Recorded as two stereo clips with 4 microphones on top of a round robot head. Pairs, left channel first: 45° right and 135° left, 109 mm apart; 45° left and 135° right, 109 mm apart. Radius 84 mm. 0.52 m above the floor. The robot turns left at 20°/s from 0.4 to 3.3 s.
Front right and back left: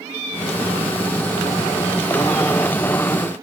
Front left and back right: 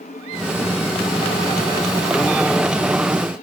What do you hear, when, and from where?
Only background noise.